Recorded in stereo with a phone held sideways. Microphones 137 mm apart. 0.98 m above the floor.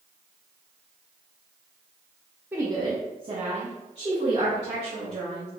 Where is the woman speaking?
15° right (ahead or behind), 0.8 m; by 5.5 s 40° right (ahead or behind), 3.5 m.